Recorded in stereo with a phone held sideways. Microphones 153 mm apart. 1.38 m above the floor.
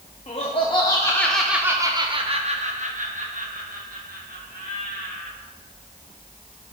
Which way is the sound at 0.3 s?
45° left (ahead or behind).